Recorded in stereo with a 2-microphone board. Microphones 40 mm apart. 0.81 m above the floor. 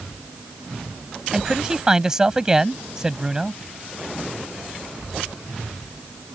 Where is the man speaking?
15° right (ahead or behind).